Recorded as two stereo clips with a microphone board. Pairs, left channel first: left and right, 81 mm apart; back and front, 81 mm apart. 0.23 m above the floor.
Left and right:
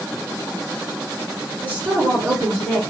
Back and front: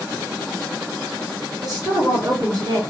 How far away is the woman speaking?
About 1.9 m.